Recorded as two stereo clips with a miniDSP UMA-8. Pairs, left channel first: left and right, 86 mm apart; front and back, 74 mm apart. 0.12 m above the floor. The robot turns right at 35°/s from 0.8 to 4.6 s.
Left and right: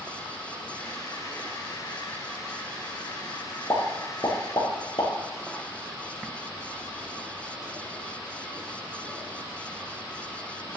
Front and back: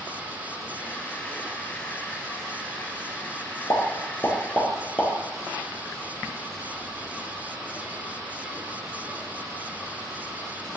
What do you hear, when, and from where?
3.7 s a pop: 35° left, 2.5 m; by 5.1 s 70° left, 2.5 m